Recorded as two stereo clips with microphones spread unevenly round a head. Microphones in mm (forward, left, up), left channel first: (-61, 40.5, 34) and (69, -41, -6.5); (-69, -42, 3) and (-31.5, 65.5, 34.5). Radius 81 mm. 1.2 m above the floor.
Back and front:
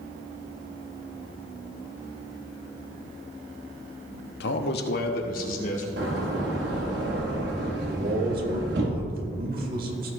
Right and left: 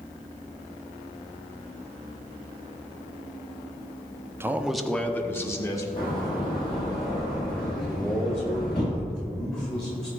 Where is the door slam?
50° right, 2 m.